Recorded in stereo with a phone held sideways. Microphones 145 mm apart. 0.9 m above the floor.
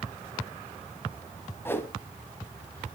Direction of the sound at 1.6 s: 15° left (ahead or behind).